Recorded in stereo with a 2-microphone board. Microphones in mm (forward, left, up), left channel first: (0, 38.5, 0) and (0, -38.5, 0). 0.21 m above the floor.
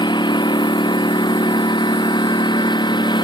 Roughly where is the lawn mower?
Left.